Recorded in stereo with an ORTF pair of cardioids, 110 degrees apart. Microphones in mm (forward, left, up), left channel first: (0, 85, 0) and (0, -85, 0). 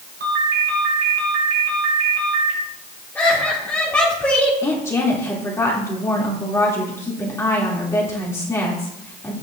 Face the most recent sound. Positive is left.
turn(degrees=15)